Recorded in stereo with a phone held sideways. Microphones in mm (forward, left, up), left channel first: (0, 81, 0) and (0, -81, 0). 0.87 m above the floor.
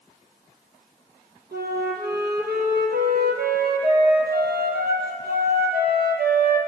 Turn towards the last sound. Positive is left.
turn(degrees=-80)